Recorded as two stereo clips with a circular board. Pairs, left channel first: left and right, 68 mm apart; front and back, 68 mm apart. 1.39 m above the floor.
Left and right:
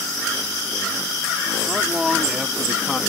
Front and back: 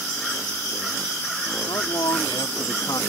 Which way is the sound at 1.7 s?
5° right.